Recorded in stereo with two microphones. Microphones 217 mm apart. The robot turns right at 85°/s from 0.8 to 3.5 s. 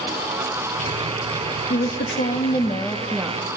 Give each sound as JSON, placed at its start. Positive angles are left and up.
{"t": 1.7, "sound": "a woman speaking", "azimuth_deg": 65, "distance_m": 1.0}